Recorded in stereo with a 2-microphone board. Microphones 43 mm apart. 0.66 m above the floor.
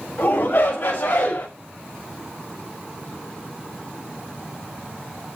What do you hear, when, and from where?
0.2 s a shout: 75° left (ahead or behind), 4 m